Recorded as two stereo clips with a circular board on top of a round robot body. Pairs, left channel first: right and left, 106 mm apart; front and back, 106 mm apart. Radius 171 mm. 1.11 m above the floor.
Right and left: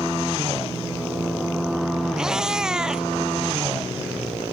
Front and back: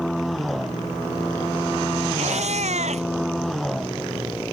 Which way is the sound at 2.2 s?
175° left.